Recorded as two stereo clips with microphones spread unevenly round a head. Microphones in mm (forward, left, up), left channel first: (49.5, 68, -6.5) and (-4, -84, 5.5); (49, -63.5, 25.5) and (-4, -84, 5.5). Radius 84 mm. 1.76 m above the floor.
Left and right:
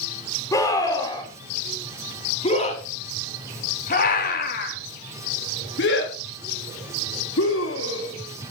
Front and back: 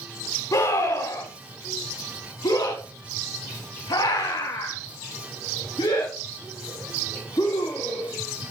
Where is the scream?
Straight ahead, 4 m; by 8.1 s 75° left, 4.5 m.